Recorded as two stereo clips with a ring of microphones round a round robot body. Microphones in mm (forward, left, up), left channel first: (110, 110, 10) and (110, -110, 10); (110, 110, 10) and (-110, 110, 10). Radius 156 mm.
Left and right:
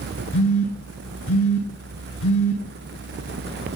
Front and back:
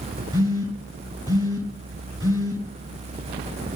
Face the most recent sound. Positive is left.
turn(degrees=105)